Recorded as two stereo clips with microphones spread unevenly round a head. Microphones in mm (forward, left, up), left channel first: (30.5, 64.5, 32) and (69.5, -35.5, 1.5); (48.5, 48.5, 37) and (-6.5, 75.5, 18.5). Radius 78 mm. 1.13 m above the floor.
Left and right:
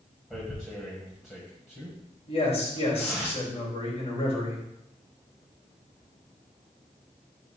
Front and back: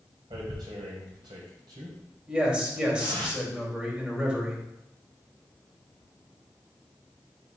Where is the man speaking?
85° left, 3 m.